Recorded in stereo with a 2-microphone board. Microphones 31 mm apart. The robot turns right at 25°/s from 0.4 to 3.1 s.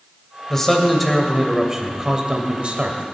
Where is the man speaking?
165° left, 2 m; by 3.0 s 130° right, 2 m.